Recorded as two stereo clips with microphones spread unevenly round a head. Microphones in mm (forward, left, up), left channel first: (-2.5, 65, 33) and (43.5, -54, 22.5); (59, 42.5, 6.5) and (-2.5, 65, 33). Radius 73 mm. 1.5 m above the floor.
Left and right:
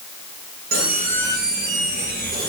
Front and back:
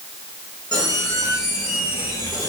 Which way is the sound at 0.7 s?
90° right.